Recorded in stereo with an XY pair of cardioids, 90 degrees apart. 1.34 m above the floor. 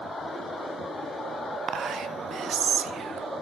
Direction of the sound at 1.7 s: 65° right.